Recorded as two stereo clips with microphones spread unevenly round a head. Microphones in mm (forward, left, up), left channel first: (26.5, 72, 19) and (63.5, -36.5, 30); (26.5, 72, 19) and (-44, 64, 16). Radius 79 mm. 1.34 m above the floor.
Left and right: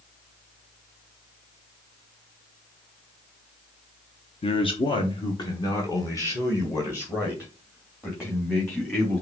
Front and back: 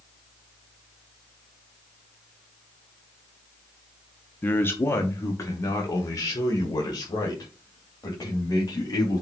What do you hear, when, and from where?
4.4 s a man speaking: 70° left, 0.9 m; by 9.2 s 40° left, 3 m